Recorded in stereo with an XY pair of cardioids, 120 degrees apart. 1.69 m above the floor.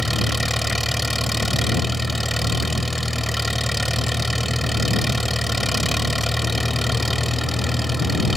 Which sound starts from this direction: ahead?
An engine running, at 0.0 s.